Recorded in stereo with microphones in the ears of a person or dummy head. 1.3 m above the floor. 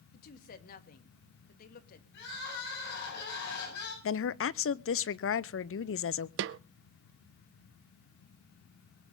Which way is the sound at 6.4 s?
70° right (ahead or behind).